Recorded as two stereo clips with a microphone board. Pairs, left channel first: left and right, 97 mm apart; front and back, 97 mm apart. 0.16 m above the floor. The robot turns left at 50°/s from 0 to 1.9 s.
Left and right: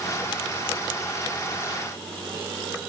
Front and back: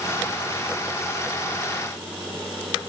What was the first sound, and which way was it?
Only background noise.